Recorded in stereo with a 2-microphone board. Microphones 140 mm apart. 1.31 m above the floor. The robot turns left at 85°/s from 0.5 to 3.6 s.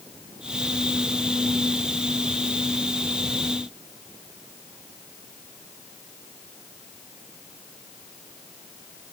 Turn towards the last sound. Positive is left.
No sound to turn to.